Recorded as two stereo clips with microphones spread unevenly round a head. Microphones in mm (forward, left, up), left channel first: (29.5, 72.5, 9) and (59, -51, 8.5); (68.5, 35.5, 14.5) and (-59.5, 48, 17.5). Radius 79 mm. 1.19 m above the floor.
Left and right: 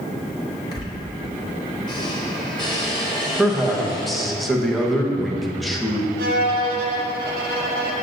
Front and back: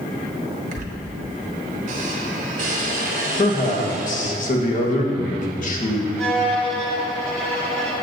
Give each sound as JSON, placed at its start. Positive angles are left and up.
{"t": 0.7, "sound": "a squeak", "azimuth_deg": 165, "distance_m": 0.9}
{"t": 3.4, "sound": "a man speaking", "azimuth_deg": 15, "distance_m": 1.1}
{"t": 6.2, "sound": "a violin", "azimuth_deg": -95, "distance_m": 0.8}